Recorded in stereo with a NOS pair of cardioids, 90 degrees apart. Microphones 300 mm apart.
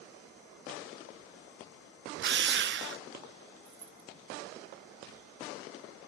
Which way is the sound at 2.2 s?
40° right.